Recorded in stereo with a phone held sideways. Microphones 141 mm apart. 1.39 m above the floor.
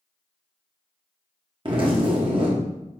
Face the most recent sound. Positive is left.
turn(degrees=-40)  # may be behind; listen again after turning